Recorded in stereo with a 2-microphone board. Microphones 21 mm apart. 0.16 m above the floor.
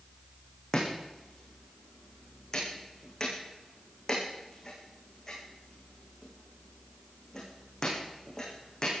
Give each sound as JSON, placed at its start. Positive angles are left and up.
{"t": 0.7, "sound": "chopping", "side_deg": 25, "distance_m": 7.5}